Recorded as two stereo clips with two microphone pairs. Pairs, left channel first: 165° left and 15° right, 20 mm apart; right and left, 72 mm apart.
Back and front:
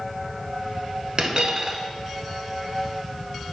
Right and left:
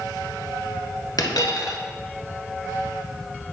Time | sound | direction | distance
1.2 | a dropped coin | 70° right | 0.7 m